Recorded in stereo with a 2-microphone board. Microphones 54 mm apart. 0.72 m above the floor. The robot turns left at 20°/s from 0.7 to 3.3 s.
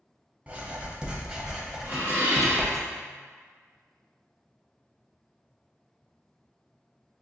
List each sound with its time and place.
0.5 s writing: 150° right, 0.6 m; by 2.8 s 170° left, 0.6 m
1.8 s dishes clattering: 30° right (ahead or behind), 1.2 m; by 2.8 s 50° right (ahead or behind), 1.2 m